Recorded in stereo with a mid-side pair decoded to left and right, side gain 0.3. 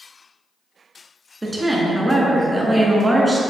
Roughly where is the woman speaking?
Ahead.